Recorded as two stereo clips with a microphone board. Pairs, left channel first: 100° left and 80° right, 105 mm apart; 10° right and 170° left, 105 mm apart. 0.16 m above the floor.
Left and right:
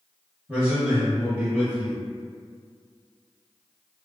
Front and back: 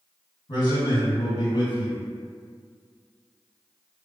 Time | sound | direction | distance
0.5 | a man speaking | 5° right | 2.0 m